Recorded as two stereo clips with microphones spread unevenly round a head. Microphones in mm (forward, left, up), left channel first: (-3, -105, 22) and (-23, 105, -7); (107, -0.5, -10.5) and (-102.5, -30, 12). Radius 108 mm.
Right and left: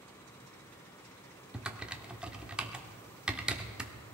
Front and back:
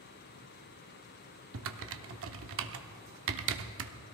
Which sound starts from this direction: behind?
Typing on a keyboard, at 1.5 s.